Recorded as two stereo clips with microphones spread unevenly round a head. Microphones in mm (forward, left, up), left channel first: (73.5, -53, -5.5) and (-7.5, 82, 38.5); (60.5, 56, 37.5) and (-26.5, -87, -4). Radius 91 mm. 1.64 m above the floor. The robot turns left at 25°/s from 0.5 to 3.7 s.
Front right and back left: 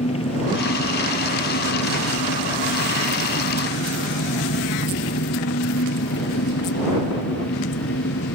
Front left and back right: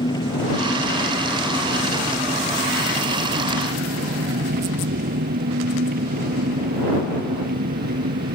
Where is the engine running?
5° right; by 8.3 s 85° right.